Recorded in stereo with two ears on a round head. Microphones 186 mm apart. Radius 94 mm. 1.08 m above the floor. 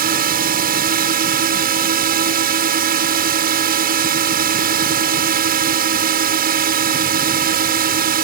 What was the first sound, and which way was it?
A drone, 45° right (ahead or behind).